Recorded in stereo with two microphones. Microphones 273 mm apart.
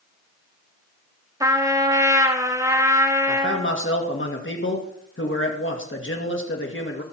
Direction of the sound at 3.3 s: 45° left (ahead or behind).